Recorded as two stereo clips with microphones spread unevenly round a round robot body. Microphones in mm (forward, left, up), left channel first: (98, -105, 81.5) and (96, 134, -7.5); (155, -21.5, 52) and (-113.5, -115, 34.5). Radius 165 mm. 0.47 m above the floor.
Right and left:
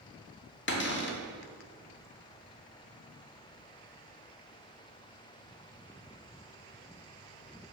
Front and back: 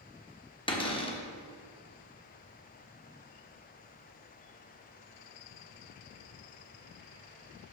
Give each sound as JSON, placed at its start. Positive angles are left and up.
{"t": 0.7, "sound": "a cupboard door", "azimuth_deg": -45, "distance_m": 1.3}